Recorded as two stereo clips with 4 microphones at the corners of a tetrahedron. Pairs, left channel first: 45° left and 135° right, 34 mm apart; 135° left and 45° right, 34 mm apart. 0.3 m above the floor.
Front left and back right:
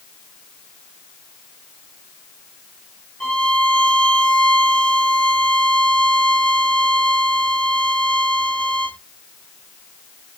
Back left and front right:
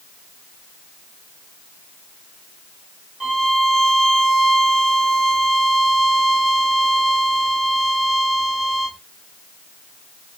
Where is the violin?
10° left, 1.0 m.